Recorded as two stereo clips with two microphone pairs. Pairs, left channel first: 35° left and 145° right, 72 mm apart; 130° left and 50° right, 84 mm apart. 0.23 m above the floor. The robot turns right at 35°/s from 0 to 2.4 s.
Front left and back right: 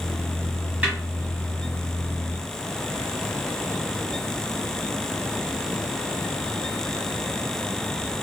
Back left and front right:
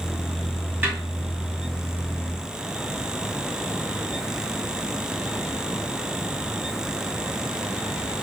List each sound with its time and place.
0.8 s a snare drum: 90° right, 1.3 m; by 1.0 s 85° right, 1.3 m